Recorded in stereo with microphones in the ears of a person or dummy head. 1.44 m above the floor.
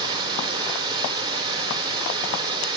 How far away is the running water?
About 2.5 m.